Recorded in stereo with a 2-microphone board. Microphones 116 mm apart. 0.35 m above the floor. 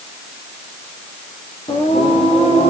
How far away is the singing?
About 5.5 m.